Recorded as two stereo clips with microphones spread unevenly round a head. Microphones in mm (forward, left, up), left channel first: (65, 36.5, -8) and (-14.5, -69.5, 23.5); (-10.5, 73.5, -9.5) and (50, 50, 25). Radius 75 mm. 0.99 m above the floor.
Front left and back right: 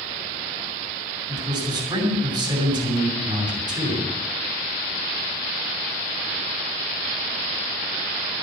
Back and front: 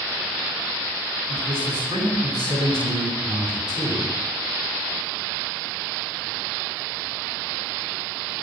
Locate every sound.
1.3 s a man speaking: 70° right, 7.5 m